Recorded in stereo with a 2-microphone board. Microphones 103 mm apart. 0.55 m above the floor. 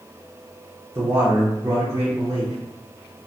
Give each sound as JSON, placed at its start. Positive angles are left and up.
{"t": 0.9, "sound": "a man speaking", "side_deg": -25, "distance_m": 1.0}